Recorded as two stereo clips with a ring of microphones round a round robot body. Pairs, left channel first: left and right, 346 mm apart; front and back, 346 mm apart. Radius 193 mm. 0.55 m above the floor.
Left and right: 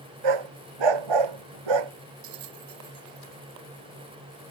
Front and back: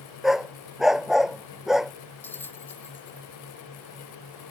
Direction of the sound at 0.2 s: 90° right.